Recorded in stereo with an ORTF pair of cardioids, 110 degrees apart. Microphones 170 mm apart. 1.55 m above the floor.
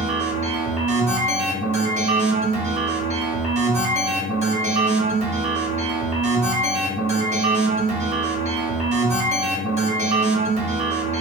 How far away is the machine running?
About 1.6 m.